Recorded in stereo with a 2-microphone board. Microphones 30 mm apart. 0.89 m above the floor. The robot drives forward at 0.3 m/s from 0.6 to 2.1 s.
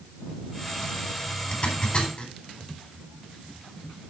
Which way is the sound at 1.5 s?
40° left (ahead or behind).